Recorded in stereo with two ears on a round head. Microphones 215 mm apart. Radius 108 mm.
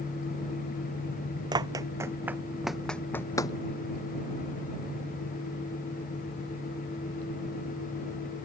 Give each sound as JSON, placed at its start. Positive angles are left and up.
{"t": 1.5, "sound": "running footsteps", "side_deg": -20}